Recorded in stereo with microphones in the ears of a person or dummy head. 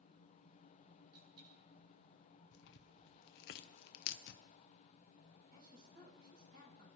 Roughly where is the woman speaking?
Right.